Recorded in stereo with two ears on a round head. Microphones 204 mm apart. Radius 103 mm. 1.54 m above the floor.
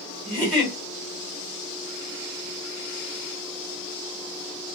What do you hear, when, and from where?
0.2 s a giggle: 5° right (ahead or behind), 1.9 m